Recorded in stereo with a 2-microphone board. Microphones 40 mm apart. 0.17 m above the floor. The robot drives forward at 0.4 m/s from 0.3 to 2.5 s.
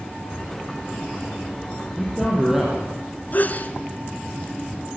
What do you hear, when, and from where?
1.8 s a man speaking: 5° right (ahead or behind), 7 m
3.3 s a sneeze: 45° left (ahead or behind), 2.5 m